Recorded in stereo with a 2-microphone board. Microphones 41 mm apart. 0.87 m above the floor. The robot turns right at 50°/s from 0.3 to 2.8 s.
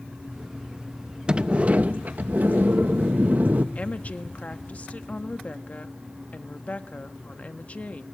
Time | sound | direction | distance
1.3 | a sliding door | 145° right | 0.7 m
3.8 | a woman speaking | 40° left (ahead or behind) | 1.2 m